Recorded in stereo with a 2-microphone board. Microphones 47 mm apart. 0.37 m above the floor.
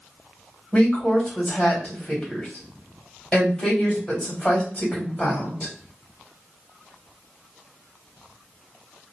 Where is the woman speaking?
20° left (ahead or behind), 1.9 m.